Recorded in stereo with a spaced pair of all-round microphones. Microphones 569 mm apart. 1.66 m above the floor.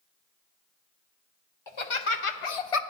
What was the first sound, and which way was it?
Laughter, 55° left (ahead or behind).